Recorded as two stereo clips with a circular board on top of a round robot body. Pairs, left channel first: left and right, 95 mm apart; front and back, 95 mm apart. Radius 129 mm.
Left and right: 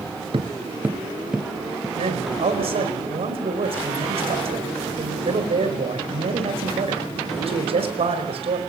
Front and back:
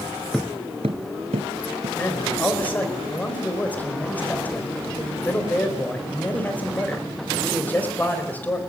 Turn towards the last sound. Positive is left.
turn(degrees=-75)